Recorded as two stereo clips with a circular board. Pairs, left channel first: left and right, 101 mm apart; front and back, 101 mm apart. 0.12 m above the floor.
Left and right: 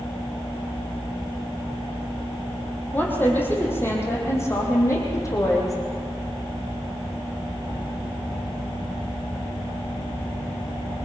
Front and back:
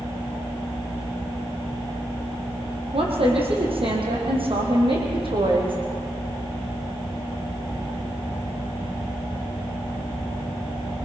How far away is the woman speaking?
About 5 m.